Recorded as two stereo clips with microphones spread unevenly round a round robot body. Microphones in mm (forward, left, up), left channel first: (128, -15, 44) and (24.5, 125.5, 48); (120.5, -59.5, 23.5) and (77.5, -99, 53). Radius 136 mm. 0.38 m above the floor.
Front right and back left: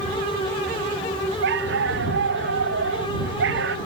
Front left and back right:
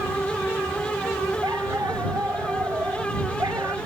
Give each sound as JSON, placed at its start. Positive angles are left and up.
{"t": 1.4, "sound": "a dog barking", "azimuth_deg": 155}